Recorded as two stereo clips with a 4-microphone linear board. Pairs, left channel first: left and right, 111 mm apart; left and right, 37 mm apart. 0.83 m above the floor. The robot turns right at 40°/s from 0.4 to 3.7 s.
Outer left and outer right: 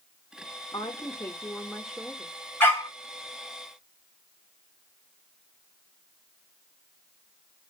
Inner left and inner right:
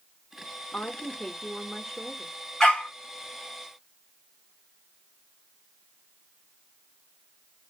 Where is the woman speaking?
135° left, 0.7 m; by 2.3 s 160° right, 0.7 m.